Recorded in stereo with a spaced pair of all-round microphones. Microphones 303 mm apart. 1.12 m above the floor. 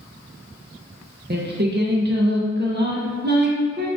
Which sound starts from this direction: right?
Singing, at 1.3 s.